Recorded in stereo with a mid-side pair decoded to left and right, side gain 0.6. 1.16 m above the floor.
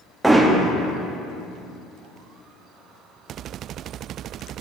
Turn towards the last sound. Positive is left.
turn(degrees=-5)